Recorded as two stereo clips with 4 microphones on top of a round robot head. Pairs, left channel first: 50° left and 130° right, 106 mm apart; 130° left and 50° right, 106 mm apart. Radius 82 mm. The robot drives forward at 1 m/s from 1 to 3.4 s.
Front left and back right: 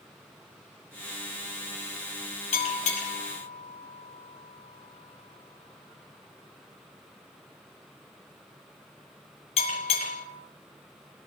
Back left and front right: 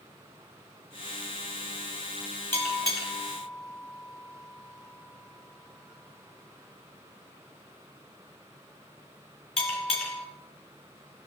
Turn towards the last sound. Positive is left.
turn(degrees=85)